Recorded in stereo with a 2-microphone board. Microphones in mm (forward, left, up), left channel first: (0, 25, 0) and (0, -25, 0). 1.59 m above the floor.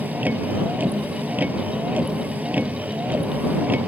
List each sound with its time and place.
0.0 s a vehicle: 35° right (ahead or behind)